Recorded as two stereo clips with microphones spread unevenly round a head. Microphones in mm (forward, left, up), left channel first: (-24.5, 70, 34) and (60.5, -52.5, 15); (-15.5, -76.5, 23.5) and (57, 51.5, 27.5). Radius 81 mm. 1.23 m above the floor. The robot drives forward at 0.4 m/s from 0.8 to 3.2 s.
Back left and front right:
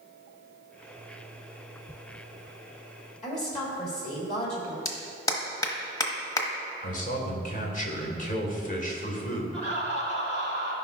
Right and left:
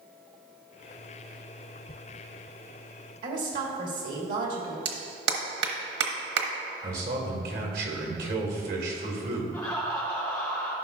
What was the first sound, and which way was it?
A woman speaking, 85° left.